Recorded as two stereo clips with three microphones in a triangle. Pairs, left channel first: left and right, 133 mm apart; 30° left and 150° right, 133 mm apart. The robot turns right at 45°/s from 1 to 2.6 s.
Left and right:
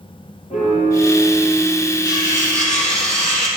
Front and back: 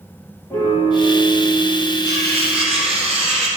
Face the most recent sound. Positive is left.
turn(degrees=170)